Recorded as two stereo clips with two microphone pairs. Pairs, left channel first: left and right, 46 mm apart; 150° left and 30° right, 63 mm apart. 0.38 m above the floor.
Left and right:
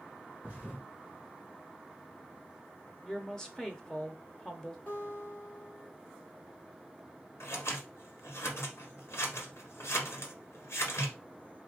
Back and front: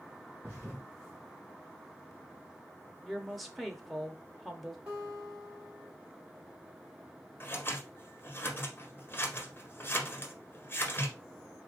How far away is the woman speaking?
About 0.8 m.